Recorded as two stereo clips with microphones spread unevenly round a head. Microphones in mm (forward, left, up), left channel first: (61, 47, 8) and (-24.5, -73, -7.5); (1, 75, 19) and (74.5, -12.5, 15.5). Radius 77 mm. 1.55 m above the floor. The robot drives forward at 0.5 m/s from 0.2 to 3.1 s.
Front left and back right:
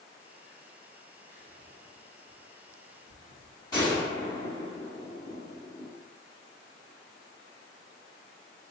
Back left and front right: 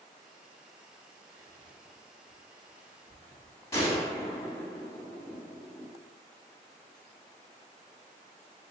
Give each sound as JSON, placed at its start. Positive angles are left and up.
{"t": 1.3, "sound": "whispering", "azimuth_deg": -115, "distance_m": 0.8}
{"t": 3.7, "sound": "a gunshot", "azimuth_deg": 115, "distance_m": 1.5}